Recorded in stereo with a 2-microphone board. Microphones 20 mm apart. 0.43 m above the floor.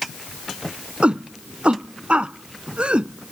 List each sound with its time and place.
1.0 s a shout: 75° right (ahead or behind); by 3.3 s 70° right (ahead or behind)